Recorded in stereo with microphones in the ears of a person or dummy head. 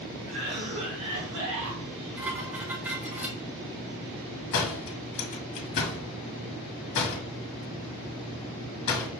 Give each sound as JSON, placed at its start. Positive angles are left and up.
{"t": 0.3, "sound": "a cough", "side_deg": -85, "distance_m": 1.3}
{"t": 2.2, "sound": "dishes clattering", "side_deg": -10, "distance_m": 0.7}
{"t": 4.5, "sound": "a door slam", "side_deg": 60, "distance_m": 1.2}